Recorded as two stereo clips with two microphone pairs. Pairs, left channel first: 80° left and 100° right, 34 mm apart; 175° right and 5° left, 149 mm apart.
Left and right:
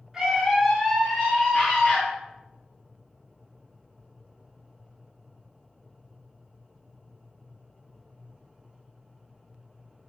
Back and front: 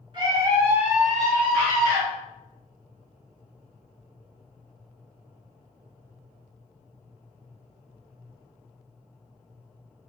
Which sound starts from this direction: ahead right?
A scream, at 0.1 s.